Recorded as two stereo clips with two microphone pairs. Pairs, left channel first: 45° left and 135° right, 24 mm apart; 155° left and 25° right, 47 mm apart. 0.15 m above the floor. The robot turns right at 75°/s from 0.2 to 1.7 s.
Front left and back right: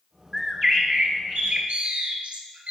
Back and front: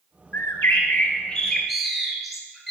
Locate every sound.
0.3 s a bird: 145° left, 1.2 m; by 2.7 s 115° right, 1.2 m